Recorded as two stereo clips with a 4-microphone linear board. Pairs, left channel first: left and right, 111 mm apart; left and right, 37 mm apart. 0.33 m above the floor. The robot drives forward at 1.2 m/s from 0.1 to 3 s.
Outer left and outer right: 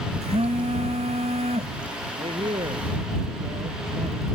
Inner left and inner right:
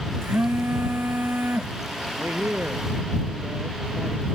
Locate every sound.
0.2 s a phone buzzing: 80° right; by 1.7 s 75° right (ahead or behind)
2.2 s a man speaking: 65° right (ahead or behind); by 4.3 s 60° right (ahead or behind)